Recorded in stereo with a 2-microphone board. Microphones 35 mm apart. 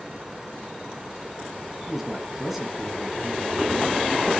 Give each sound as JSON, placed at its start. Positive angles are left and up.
{"t": 1.9, "sound": "a man speaking", "side_deg": -5, "distance_m": 1.4}